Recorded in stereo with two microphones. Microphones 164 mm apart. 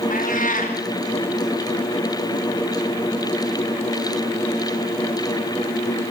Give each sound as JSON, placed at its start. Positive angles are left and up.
{"t": 0.1, "sound": "a cat meowing", "side_deg": 55, "distance_m": 6.0}